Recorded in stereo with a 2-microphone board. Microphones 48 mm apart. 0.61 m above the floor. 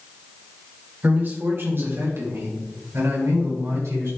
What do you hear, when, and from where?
1.0 s a man speaking: 35° right (ahead or behind), 2 m; by 4.1 s 80° right, 6 m